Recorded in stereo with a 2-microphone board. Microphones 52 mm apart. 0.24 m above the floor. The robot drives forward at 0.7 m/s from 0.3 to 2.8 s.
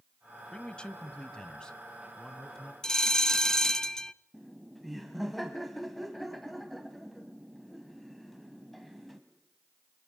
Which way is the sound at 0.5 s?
15° left (ahead or behind).